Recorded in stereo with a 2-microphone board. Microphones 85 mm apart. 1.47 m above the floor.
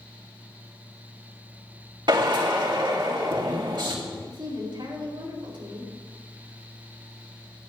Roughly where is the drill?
Right.